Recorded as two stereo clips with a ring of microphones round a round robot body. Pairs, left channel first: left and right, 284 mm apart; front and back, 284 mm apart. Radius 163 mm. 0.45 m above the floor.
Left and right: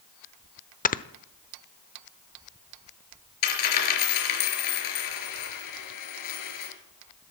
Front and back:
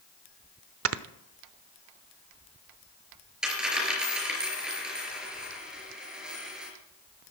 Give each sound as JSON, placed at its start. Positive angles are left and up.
{"t": 0.8, "sound": "snoring", "azimuth_deg": 150, "distance_m": 0.9}
{"t": 3.4, "sound": "a dropped coin", "azimuth_deg": 90, "distance_m": 4.5}